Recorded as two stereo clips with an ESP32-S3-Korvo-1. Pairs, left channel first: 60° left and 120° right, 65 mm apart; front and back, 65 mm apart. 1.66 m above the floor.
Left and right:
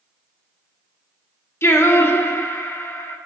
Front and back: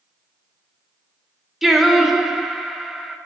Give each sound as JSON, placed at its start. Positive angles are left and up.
{"t": 1.6, "sound": "singing", "azimuth_deg": 95, "distance_m": 1.0}